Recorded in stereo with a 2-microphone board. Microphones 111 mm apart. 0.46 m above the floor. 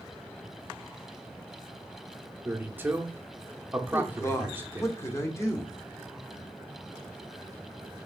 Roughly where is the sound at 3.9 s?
Left.